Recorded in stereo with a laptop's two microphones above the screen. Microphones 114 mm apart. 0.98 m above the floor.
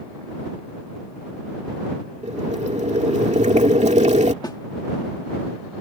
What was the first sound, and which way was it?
Boiling, 85° right.